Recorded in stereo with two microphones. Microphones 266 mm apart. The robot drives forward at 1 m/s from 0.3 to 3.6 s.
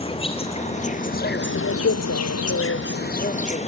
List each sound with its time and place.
0.0 s an insect: 20° left (ahead or behind), 2.0 m; by 3.7 s 25° left (ahead or behind), 1.6 m